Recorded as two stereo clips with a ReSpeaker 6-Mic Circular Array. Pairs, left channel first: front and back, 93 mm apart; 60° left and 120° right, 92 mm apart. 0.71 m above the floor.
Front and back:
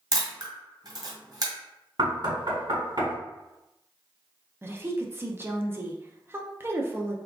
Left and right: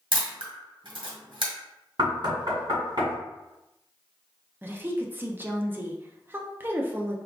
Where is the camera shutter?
140° right, 1.5 m.